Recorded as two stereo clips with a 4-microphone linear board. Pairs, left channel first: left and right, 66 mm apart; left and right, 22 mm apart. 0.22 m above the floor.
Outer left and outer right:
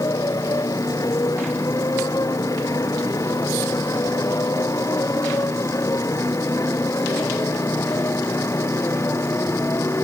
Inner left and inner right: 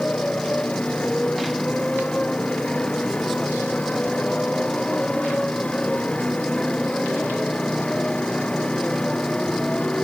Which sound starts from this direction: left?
A motorcycle, at 0.0 s.